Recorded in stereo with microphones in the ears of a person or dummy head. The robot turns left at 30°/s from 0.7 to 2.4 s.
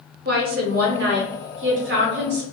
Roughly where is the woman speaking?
Ahead right.